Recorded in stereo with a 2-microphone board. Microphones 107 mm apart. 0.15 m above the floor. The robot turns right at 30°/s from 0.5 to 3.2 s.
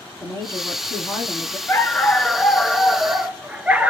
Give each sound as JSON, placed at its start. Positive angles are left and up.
{"t": 0.2, "sound": "a woman speaking", "azimuth_deg": 60, "distance_m": 1.8}
{"t": 1.7, "sound": "a dog barking", "azimuth_deg": 150, "distance_m": 0.5}